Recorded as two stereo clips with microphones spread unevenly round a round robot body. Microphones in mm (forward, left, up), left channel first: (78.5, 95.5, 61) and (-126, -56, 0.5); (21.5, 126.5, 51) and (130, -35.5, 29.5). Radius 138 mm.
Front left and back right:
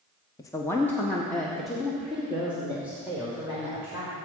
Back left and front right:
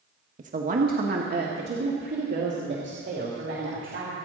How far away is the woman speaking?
About 1.1 m.